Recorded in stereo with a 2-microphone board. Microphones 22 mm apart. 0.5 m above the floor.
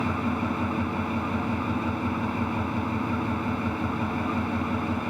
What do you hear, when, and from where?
0.0 s an engine running: 5° left (ahead or behind), 1.2 m